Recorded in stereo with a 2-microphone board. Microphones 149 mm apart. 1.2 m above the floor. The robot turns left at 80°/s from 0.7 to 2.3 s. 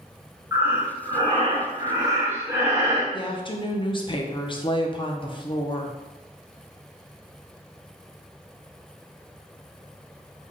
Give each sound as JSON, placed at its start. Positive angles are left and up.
{"t": 0.5, "sound": "breathing", "azimuth_deg": -25, "distance_m": 0.8}
{"t": 3.1, "sound": "a woman speaking", "side_deg": 35, "distance_m": 0.5}